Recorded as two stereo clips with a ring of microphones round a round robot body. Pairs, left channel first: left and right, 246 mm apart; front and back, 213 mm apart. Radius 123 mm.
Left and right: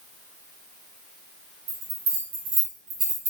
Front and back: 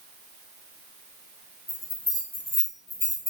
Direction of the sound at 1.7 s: 85° right.